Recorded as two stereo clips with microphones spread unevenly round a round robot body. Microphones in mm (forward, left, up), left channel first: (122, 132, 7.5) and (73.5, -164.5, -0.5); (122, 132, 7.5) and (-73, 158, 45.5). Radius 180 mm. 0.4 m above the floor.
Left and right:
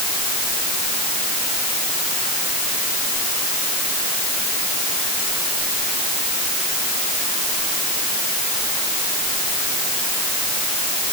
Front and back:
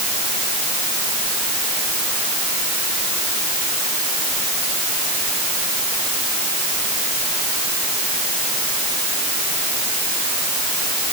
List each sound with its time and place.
Only background noise.